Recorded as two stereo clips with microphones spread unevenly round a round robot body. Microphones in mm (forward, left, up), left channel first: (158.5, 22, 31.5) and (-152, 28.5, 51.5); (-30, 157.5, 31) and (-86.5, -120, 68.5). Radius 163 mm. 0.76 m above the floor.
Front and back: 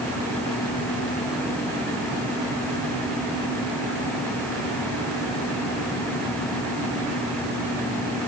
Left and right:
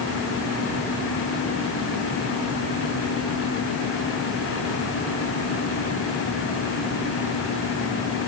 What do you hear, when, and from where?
Only background noise.